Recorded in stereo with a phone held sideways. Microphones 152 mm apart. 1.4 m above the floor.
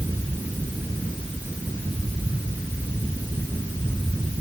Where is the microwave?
I don't hear a microwave.